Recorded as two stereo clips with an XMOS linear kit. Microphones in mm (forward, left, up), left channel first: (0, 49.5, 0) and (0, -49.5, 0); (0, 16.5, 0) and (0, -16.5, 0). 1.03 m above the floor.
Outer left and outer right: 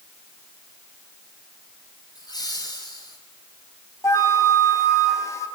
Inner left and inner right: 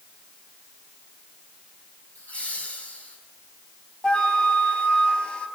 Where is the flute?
30° left (ahead or behind), 4.5 m.